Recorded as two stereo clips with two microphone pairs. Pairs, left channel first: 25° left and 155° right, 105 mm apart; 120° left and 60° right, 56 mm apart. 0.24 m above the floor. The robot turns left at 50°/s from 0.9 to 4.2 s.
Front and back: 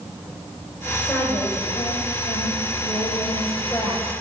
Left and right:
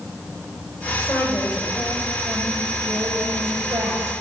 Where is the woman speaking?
95° left, 8 m; by 4.2 s 60° right, 8 m.